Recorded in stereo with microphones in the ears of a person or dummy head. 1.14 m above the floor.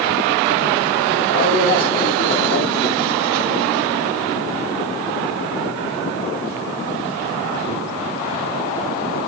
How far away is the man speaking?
About 7 m.